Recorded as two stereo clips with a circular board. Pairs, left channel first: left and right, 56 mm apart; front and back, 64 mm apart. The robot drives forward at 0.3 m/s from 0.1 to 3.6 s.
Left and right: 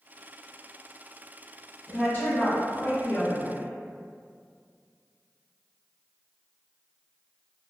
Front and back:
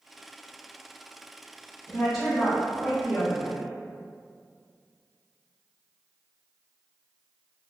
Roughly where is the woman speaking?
Left.